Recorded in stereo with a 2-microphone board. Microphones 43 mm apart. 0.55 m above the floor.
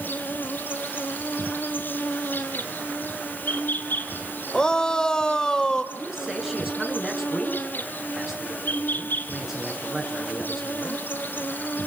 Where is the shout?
20° left (ahead or behind), 1.8 m.